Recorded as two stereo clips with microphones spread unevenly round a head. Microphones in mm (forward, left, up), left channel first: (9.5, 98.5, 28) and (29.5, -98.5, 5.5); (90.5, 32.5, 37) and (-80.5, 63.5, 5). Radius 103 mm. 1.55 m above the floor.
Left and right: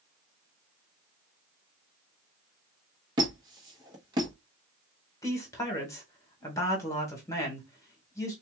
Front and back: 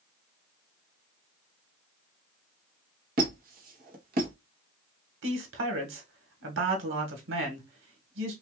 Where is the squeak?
155° right, 1.0 m.